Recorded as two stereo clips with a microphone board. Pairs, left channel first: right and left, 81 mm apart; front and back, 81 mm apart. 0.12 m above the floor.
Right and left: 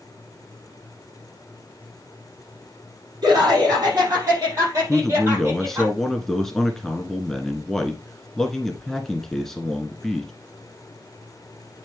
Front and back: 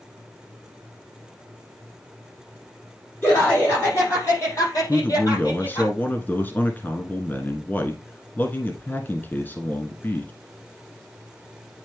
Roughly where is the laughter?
Ahead left.